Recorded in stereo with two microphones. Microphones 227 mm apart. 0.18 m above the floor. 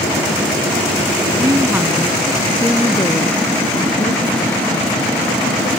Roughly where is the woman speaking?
Right.